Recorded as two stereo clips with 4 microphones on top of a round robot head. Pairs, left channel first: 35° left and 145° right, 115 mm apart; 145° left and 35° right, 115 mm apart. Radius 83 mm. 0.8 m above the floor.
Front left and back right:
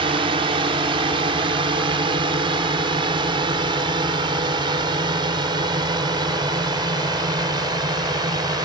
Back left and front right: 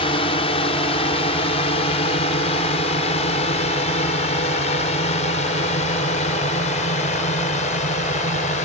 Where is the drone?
Straight behind; by 8.7 s 160° left.